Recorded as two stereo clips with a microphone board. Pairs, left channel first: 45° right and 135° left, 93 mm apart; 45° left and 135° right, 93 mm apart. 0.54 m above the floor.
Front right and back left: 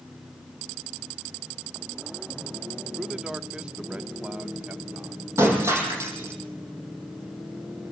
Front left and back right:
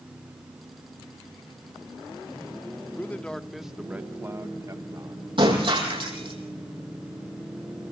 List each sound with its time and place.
3.0 s a man speaking: 60° left, 1.0 m; by 5.3 s 155° right, 1.4 m
5.4 s breaking glass: 165° right, 7 m